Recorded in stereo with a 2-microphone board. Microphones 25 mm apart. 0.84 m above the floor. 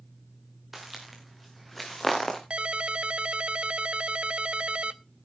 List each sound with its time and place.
0.7 s footsteps: 10° right (ahead or behind), 3.5 m; by 2.4 s 10° left (ahead or behind), 4 m
2.5 s a ringtone: 50° right (ahead or behind), 0.6 m